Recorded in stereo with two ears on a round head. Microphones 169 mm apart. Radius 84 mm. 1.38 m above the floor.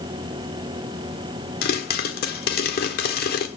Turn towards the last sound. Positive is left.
turn(degrees=55)  # may be behind; listen again after turning